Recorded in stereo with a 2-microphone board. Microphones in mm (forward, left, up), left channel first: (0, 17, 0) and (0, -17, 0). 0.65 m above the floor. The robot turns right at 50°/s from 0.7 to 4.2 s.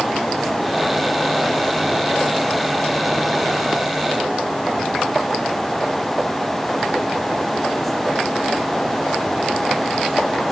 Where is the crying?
I don't hear crying.